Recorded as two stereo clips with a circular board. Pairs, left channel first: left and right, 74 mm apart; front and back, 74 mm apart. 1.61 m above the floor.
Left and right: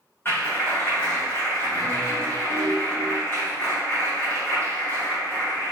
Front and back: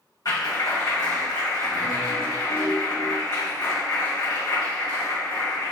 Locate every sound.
0.2 s a clap: 30° left, 1.9 m